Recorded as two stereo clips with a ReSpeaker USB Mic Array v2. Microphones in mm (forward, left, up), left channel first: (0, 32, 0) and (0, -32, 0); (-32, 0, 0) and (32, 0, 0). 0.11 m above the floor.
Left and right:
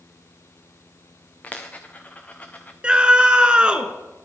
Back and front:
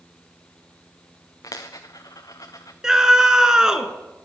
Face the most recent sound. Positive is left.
turn(degrees=-60)